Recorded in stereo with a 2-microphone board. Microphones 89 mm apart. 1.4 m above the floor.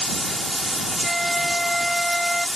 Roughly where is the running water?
Centre.